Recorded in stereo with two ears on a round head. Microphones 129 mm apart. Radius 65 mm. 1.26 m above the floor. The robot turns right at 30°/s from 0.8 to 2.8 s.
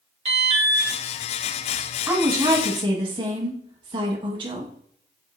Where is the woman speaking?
10° right (ahead or behind), 1.2 m; by 4.7 s 35° right (ahead or behind), 1.2 m.